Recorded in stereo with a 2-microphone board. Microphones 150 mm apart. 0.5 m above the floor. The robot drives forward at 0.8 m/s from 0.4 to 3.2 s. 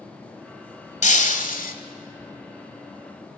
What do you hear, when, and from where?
1.0 s breaking glass: 55° left (ahead or behind), 1.7 m; by 1.8 s 70° left (ahead or behind), 1.5 m